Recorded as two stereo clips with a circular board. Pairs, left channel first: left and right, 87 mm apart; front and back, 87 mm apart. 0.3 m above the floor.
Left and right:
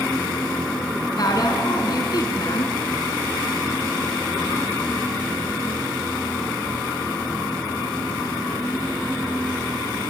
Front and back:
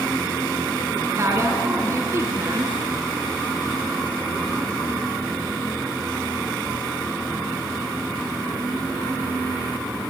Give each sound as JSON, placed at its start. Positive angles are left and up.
{"t": 1.2, "sound": "a woman speaking", "azimuth_deg": 125, "distance_m": 3.5}